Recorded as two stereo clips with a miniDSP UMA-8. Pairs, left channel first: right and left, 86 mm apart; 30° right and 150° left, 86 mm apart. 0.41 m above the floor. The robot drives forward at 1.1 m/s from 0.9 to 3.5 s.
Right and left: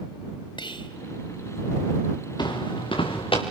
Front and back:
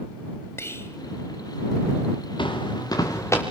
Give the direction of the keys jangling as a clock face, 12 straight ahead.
I don't hear keys jangling.